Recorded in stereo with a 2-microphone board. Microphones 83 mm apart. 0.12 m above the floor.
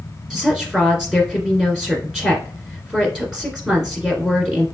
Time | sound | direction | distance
0.3 | a woman speaking | 5° right (ahead or behind) | 1.6 m